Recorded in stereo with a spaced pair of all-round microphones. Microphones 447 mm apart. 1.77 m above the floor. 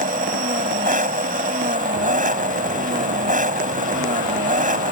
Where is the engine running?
15° right (ahead or behind).